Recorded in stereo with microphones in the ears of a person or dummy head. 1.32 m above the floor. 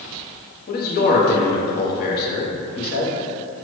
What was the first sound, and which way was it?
A man speaking, 50° left (ahead or behind).